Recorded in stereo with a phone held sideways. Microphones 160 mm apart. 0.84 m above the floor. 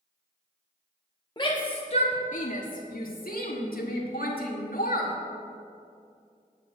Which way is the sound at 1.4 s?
30° left (ahead or behind).